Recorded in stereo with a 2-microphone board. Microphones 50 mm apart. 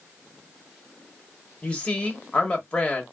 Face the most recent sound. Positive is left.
turn(degrees=20)  # may be behind; listen again after turning